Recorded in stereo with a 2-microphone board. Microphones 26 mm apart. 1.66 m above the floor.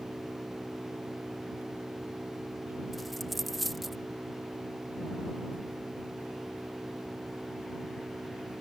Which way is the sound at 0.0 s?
80° right.